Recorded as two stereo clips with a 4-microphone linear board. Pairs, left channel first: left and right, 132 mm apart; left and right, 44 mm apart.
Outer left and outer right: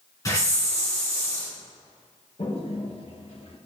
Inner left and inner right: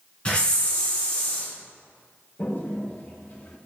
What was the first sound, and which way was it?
A hiss, 25° left (ahead or behind).